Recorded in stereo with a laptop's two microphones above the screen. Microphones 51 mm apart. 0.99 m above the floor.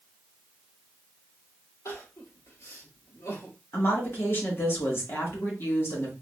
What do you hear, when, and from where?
1.9 s crying: 70° left (ahead or behind), 1.5 m
3.7 s a woman speaking: 45° left (ahead or behind), 1.1 m